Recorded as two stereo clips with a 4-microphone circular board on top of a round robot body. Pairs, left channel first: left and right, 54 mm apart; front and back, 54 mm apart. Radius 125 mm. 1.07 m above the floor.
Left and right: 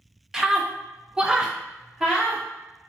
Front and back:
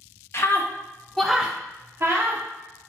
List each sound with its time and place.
0.3 s a scream: 10° right, 0.8 m; by 2.4 s 170° right, 0.9 m